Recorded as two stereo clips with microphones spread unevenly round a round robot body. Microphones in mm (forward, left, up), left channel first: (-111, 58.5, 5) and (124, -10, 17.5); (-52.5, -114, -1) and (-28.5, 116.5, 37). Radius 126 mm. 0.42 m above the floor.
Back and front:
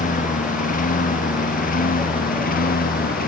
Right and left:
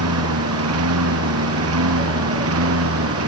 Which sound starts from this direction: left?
A lawn mower, at 0.0 s.